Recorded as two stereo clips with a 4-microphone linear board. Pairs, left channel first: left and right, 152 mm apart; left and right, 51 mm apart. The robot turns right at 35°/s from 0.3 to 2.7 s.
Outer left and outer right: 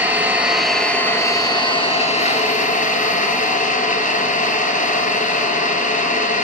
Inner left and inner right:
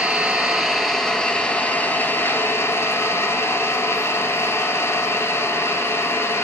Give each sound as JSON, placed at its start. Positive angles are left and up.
{"t": 0.0, "sound": "an engine running", "azimuth_deg": -15, "distance_m": 1.6}